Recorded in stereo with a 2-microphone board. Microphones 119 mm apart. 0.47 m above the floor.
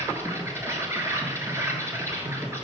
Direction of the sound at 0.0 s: 20° right (ahead or behind).